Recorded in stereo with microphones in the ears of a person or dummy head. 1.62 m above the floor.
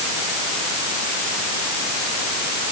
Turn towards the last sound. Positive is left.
No sound to turn to.